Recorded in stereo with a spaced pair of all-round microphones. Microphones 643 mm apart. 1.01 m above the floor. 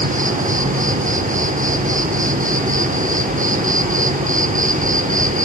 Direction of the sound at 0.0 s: 10° right (ahead or behind).